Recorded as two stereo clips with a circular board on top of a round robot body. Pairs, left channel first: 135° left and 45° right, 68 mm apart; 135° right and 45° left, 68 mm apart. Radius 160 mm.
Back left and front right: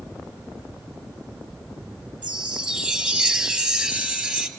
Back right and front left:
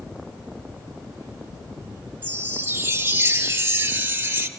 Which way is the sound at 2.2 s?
20° left.